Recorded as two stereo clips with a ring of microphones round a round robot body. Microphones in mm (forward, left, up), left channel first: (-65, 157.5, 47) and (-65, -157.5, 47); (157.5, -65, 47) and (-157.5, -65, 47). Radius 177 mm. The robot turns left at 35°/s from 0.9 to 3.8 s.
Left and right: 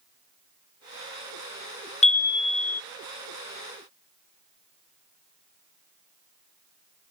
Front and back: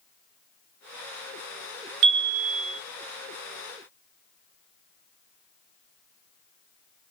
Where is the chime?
160° left, 0.6 m; by 2.8 s 135° left, 0.6 m.